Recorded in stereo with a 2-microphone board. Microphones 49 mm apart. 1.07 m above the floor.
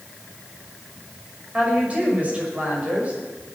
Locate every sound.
1.5 s a woman speaking: 30° right (ahead or behind), 5.5 m